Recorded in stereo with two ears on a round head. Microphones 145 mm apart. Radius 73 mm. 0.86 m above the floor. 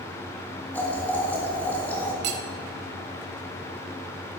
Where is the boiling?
10° left (ahead or behind), 1.7 m.